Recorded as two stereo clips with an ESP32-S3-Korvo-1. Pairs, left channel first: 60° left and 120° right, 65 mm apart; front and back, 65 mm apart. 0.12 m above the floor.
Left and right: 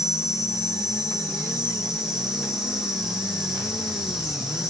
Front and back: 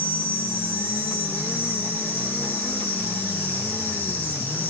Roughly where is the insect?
Ahead right.